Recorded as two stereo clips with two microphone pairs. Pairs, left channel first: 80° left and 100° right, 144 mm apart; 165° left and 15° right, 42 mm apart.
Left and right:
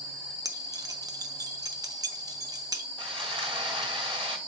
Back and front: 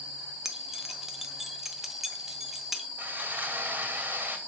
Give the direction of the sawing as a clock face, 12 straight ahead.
2 o'clock.